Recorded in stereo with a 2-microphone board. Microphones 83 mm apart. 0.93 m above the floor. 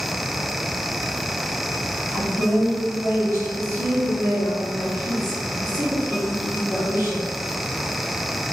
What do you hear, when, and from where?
2.1 s a woman speaking: 35° right (ahead or behind), 1.5 m